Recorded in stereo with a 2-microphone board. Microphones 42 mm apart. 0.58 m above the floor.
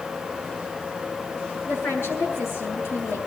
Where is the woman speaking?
80° left, 6.5 m.